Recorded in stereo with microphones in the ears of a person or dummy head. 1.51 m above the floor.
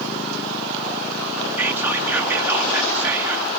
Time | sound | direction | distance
1.6 | whispering | 15° right (ahead or behind) | 0.9 m